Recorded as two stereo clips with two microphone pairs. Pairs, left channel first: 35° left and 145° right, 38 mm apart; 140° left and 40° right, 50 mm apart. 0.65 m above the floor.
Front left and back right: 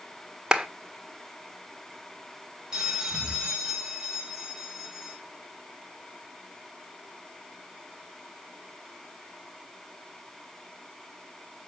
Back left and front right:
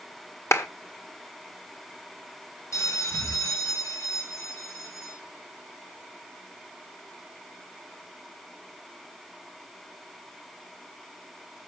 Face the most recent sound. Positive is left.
turn(degrees=145)